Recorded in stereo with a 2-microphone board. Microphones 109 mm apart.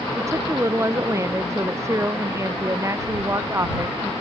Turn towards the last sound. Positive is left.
turn(degrees=-25)  # may be behind; listen again after turning